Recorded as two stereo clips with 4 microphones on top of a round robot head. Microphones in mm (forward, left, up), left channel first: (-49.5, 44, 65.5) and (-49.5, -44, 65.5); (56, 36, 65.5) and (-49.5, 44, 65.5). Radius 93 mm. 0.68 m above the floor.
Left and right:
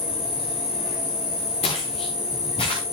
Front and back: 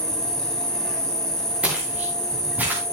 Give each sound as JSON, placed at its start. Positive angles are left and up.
{"t": 0.0, "sound": "an insect", "azimuth_deg": 80, "distance_m": 4.0}
{"t": 1.6, "sound": "footsteps", "azimuth_deg": 100, "distance_m": 4.5}